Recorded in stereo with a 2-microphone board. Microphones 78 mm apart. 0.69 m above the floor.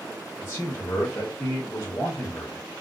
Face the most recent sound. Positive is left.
turn(degrees=35)  # may be behind; listen again after turning